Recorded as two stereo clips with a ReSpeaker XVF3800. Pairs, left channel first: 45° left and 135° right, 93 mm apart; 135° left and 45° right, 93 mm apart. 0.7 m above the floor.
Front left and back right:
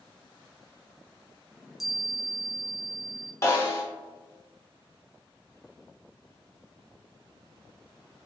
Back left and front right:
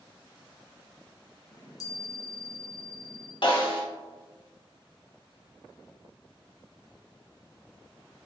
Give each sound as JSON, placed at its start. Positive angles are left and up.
{"t": 1.5, "sound": "a chime", "azimuth_deg": 140, "distance_m": 0.7}
{"t": 3.4, "sound": "a snare drum", "azimuth_deg": 105, "distance_m": 0.9}